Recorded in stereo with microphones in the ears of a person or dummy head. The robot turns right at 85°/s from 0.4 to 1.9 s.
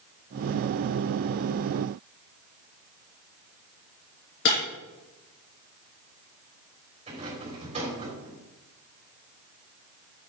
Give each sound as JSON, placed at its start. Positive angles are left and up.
{"t": 4.5, "sound": "breaking glass", "side_deg": 60, "distance_m": 5.0}
{"t": 7.1, "sound": "a rattle", "side_deg": -35, "distance_m": 3.5}